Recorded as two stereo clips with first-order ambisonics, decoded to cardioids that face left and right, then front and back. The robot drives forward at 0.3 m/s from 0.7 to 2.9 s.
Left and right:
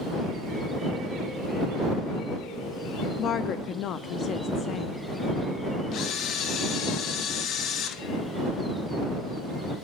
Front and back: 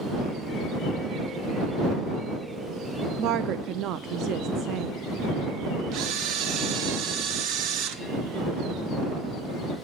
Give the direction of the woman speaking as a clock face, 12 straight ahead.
7 o'clock.